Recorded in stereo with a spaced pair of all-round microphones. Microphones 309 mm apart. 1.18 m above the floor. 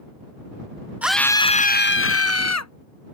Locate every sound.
1.0 s a scream: 5° right (ahead or behind); by 2.7 s 60° left (ahead or behind)